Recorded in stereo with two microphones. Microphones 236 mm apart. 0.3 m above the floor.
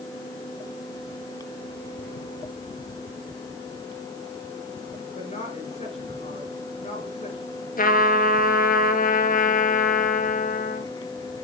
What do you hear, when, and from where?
5.2 s a woman speaking: 30° left (ahead or behind), 5 m
7.8 s a trumpet: 40° left (ahead or behind), 1.0 m